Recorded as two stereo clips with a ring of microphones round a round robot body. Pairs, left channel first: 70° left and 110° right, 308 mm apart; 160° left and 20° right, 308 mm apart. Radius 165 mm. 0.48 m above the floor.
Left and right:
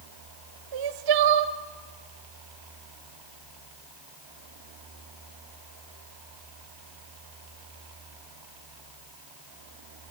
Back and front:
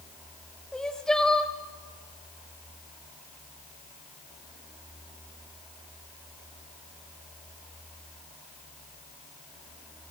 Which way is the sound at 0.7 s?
115° right.